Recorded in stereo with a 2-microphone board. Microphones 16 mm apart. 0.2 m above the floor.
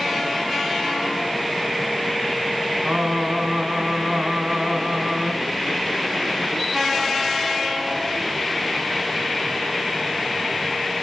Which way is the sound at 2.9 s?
40° right (ahead or behind).